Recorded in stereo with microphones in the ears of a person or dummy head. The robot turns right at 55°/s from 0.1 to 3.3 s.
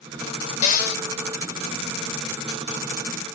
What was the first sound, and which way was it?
A cupboard door, 40° left (ahead or behind).